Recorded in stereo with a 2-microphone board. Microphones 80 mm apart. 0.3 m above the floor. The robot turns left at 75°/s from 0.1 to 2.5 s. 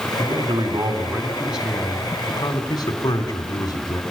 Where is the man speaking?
70° right, 3 m; by 4.0 s 120° left, 3 m.